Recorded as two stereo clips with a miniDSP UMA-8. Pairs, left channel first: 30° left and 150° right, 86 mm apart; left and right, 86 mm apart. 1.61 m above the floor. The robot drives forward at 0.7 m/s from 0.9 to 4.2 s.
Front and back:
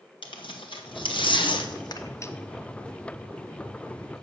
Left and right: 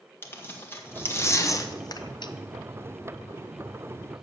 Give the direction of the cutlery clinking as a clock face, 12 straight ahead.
I don't hear cutlery clinking.